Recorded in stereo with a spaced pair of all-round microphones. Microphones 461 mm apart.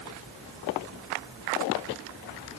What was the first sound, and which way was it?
Only background noise.